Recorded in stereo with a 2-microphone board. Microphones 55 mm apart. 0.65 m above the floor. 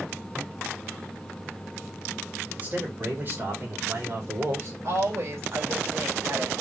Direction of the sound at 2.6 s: 30° right (ahead or behind).